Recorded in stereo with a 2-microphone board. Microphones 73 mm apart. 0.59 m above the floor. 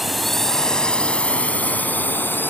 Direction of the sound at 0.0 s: Centre (ahead or behind).